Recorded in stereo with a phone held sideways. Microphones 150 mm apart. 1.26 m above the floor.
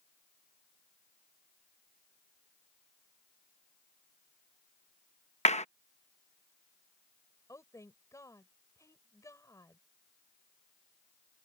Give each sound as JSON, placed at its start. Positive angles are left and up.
{"t": 5.5, "sound": "a clap", "side_deg": 50}
{"t": 7.5, "sound": "a woman speaking", "side_deg": 20}